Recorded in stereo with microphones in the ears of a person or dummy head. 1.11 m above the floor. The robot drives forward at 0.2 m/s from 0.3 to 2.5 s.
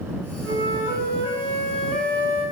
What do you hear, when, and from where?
0.4 s a flute: 20° right (ahead or behind), 1.1 m; by 2.4 s 15° right (ahead or behind), 1.4 m